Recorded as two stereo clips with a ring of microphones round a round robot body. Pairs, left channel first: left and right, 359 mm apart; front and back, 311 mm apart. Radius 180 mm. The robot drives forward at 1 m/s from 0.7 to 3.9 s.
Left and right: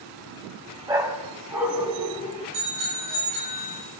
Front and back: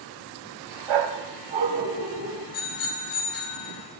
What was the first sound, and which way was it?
A dog barking, 170° right.